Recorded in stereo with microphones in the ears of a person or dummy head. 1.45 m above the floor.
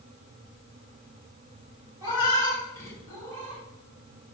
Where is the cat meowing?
15° right (ahead or behind), 2.5 m; by 3.6 s 40° right (ahead or behind), 3 m.